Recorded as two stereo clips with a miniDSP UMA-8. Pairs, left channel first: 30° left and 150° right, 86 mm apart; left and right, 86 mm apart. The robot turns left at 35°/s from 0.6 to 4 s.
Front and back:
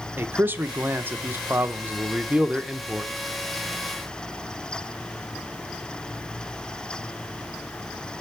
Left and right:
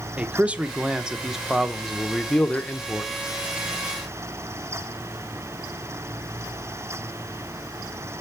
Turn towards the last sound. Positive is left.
turn(degrees=100)